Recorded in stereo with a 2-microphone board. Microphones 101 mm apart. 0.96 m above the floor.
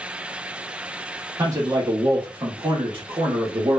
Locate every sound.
1.4 s a man speaking: 35° right (ahead or behind), 1.3 m; by 3.8 s 60° right (ahead or behind), 1.2 m